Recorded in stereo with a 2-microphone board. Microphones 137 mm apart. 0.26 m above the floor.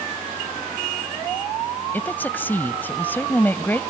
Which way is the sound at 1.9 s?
15° left (ahead or behind).